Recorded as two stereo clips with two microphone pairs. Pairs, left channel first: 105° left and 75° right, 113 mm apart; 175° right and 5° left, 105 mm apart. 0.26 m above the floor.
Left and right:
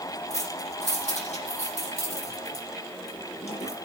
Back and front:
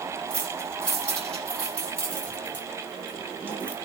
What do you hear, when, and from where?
0.3 s keys jangling: 105° left, 7.5 m